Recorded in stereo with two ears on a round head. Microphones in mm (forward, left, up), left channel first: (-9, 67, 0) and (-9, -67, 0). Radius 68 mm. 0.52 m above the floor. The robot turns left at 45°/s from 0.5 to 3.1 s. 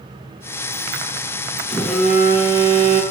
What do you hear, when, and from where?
1.7 s a phone buzzing: 10° left, 2.5 m; by 3.0 s 50° right, 2.5 m